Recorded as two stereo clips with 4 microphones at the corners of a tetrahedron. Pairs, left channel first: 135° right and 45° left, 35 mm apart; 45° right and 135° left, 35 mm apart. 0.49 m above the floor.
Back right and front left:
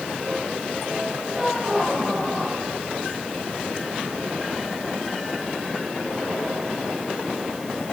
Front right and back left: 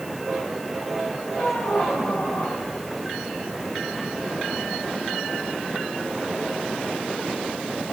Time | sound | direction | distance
1.3 | a squeak | 30° right | 2 m